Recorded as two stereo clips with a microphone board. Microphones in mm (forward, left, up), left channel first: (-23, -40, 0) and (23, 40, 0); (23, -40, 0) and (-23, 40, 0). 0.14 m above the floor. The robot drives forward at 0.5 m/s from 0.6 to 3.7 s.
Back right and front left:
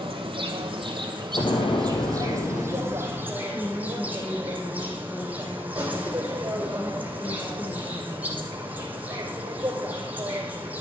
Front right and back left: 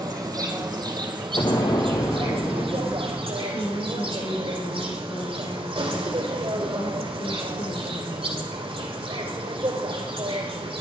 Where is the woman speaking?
55° right, 4 m; by 8.5 s 60° right, 4 m.